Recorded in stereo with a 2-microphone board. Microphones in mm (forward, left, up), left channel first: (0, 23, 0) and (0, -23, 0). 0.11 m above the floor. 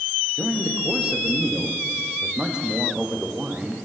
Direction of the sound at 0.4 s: 20° right (ahead or behind).